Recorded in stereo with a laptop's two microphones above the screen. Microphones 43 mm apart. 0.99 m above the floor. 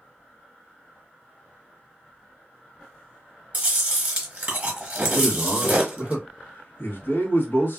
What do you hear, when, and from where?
3.5 s chewing: 35° right (ahead or behind), 0.9 m
5.1 s a man speaking: 55° left (ahead or behind), 1.0 m